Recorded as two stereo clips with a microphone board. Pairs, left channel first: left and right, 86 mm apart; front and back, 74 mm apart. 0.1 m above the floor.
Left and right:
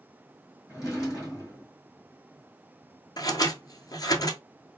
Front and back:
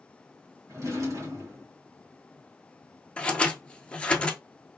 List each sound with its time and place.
0.7 s a drawer: 140° left, 2.5 m
3.2 s scissors: 70° left, 0.7 m